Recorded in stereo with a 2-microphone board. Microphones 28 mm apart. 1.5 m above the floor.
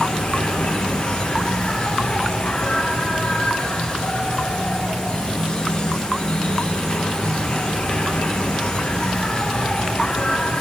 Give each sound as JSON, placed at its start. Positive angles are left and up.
{"t": 0.0, "sound": "an insect", "side_deg": 40, "distance_m": 2.5}